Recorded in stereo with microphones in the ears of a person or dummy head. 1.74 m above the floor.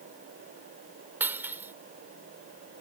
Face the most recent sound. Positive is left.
turn(degrees=-10)  # may be behind; listen again after turning